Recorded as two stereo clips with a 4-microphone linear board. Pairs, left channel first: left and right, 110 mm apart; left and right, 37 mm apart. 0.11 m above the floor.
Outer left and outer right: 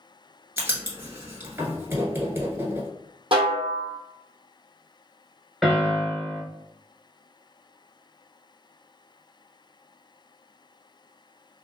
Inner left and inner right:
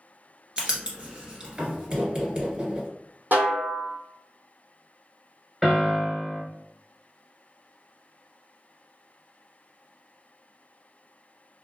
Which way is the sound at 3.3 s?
55° right (ahead or behind).